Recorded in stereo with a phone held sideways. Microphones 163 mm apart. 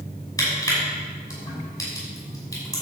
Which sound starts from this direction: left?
Crushing, at 0.4 s.